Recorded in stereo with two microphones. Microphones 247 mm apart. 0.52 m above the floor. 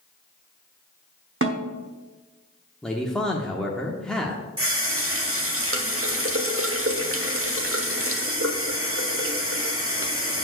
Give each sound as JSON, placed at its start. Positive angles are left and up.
{"t": 1.4, "sound": "a snare drum", "side_deg": -50, "distance_m": 1.0}
{"t": 2.8, "sound": "a man speaking", "side_deg": 0, "distance_m": 0.8}
{"t": 4.6, "sound": "a running tap", "side_deg": -55, "distance_m": 1.1}